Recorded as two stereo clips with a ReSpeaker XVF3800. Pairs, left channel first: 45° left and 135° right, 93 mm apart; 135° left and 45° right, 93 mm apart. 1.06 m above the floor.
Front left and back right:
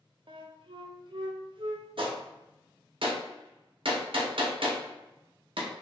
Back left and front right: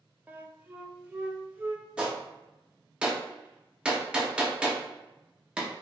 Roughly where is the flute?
Behind right.